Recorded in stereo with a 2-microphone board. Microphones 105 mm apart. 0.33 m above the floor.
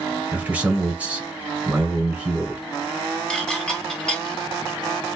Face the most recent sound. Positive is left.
turn(degrees=10)  # may be behind; listen again after turning